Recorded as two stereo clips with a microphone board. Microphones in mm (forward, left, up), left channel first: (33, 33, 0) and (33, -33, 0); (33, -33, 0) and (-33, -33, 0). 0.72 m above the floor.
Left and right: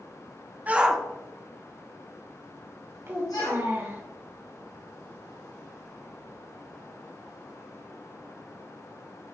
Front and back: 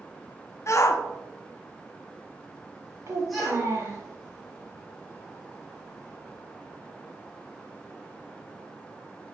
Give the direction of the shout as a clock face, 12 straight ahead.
1 o'clock.